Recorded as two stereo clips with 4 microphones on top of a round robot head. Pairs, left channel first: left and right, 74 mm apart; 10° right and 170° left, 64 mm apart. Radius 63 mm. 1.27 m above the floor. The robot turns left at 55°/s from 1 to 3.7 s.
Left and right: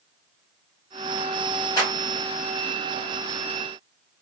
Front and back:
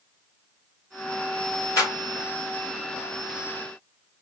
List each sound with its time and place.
1.8 s a clap: 30° left, 3.5 m; by 1.9 s 20° left, 3.5 m